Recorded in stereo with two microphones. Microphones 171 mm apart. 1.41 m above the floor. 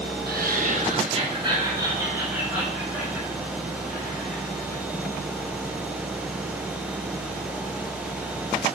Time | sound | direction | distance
0.3 | laughter | 65° right (ahead or behind) | 1.0 m